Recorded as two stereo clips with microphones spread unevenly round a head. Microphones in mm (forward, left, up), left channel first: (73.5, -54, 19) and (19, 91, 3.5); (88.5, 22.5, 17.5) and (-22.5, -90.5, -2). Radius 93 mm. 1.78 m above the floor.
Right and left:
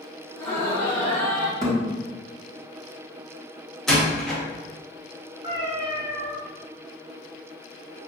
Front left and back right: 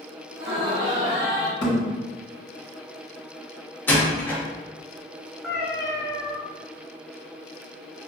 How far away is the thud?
About 1.5 m.